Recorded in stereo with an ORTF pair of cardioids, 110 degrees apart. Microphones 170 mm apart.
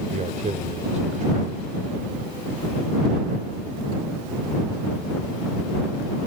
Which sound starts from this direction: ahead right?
A man speaking, at 0.1 s.